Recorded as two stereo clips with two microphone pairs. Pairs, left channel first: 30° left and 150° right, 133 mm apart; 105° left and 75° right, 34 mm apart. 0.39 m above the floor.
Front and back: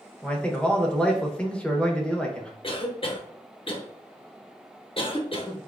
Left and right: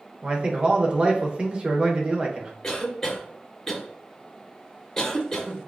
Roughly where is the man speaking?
Ahead right.